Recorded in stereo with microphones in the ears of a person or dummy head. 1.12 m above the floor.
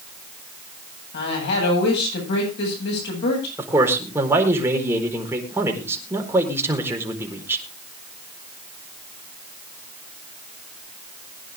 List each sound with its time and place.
1.1 s a woman speaking: 65° left (ahead or behind), 9 m
3.6 s a man speaking: 15° right (ahead or behind), 4 m